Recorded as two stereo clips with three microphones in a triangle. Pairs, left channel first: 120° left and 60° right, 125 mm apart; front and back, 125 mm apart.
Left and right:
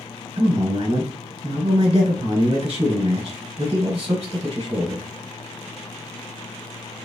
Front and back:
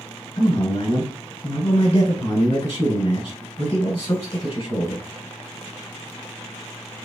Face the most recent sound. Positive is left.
turn(degrees=-30)